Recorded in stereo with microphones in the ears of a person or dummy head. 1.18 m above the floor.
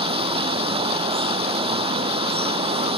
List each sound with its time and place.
0.0 s running water: 35° right (ahead or behind)